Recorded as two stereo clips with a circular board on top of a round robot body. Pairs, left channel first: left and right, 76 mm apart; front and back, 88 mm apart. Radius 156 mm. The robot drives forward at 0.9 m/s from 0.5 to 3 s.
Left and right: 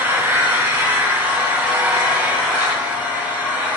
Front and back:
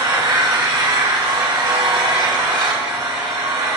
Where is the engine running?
150° right, 2.5 m; by 3.8 s 165° right, 4.5 m.